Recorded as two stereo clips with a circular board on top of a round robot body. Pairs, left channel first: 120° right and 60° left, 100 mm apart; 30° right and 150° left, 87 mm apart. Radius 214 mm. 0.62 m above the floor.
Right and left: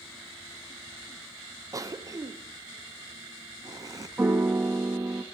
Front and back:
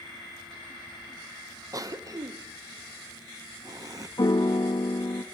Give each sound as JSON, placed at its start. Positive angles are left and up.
{"t": 1.7, "sound": "a cough", "azimuth_deg": 110, "distance_m": 1.5}
{"t": 4.2, "sound": "a piano", "azimuth_deg": -5, "distance_m": 1.5}